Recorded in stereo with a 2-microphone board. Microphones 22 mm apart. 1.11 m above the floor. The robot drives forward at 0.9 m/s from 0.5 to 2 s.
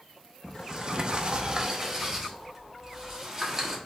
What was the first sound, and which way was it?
A sliding door, 25° right (ahead or behind).